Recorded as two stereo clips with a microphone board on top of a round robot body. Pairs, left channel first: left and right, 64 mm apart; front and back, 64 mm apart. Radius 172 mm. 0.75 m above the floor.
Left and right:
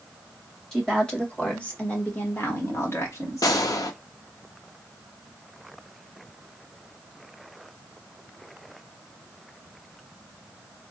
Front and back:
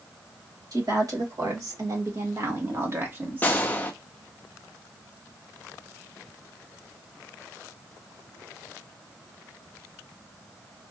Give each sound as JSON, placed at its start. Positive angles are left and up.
{"t": 0.7, "sound": "a woman speaking", "azimuth_deg": 170, "distance_m": 2.0}
{"t": 3.4, "sound": "a gunshot", "azimuth_deg": 65, "distance_m": 0.5}